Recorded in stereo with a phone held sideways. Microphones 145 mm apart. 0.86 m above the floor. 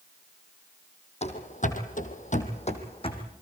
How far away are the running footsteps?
About 2.0 m.